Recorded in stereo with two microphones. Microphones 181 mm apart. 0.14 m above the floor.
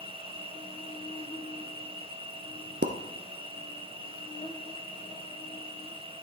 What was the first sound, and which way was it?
An insect, 20° left (ahead or behind).